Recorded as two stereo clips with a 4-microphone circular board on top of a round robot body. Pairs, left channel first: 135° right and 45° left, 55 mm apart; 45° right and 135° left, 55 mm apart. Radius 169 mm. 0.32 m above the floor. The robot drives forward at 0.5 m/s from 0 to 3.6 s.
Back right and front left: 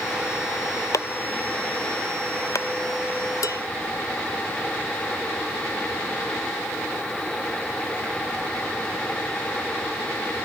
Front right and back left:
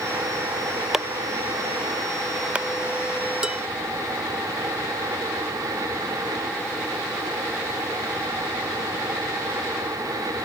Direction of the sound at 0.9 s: 145° right.